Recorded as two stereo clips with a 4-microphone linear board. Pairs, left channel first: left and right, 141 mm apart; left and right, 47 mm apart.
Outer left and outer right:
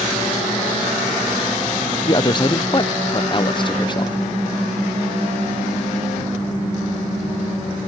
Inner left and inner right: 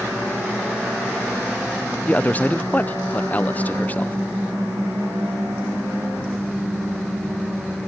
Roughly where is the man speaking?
Left.